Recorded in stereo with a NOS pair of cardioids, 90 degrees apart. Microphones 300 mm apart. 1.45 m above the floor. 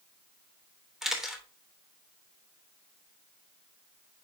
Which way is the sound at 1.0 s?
Straight ahead.